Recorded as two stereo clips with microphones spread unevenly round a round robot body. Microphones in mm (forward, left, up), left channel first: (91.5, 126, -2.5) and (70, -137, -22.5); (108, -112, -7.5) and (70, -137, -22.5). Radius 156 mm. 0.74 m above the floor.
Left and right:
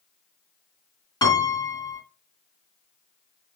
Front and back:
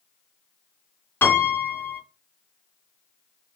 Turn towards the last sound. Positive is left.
turn(degrees=10)